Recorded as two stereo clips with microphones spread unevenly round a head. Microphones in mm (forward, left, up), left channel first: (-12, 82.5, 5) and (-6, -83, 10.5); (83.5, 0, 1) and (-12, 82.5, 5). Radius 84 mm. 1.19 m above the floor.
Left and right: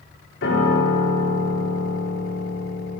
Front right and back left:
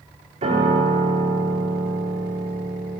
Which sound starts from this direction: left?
A piano, at 0.4 s.